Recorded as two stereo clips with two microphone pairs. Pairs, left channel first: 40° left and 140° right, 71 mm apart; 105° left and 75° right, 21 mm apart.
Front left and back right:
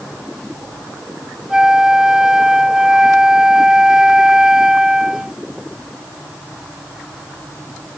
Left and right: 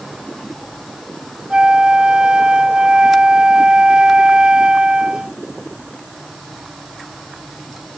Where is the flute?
60° right.